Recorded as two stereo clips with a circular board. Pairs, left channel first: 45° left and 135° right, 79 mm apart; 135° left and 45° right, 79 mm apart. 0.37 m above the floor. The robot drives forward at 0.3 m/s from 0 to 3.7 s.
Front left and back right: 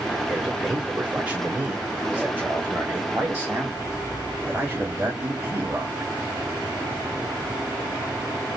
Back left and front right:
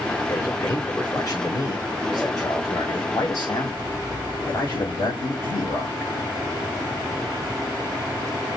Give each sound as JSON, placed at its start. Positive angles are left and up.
{"t": 0.3, "sound": "a man speaking", "azimuth_deg": 150, "distance_m": 1.4}